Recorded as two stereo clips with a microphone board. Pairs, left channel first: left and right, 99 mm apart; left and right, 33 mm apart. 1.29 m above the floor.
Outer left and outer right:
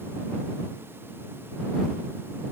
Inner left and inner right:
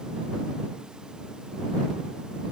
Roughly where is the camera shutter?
I don't hear a camera shutter.